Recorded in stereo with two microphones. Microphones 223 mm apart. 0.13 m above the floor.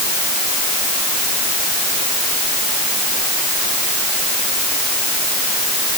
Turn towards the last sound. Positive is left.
No sound to turn to.